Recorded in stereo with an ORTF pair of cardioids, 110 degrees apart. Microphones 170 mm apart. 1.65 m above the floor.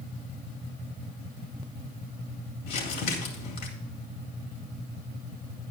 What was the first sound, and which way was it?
Crumpling, 70° left.